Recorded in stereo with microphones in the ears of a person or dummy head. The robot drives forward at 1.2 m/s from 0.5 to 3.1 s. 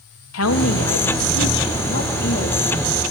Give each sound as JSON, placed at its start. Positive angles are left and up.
{"t": 0.3, "sound": "a woman speaking", "side_deg": 80, "distance_m": 2.5}